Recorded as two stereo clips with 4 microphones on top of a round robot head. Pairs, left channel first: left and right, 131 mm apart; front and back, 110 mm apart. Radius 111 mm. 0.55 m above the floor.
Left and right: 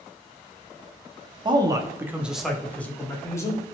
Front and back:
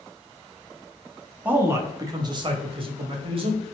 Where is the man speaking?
115° right, 0.8 m; by 3.7 s 150° left, 1.3 m.